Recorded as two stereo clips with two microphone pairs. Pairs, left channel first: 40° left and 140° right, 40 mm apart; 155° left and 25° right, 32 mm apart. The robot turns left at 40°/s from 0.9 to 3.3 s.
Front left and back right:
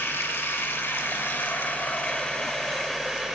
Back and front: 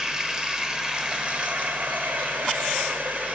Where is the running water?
35° left, 1.0 m; by 3.4 s 65° right, 1.0 m.